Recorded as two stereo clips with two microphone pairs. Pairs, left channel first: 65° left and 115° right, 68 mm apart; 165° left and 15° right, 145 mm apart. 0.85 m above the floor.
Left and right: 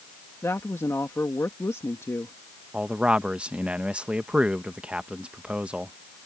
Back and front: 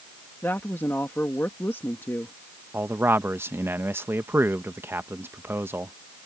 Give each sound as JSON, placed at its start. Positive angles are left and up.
{"t": 0.4, "sound": "a woman speaking", "azimuth_deg": 95}
{"t": 2.7, "sound": "a man speaking", "azimuth_deg": -70}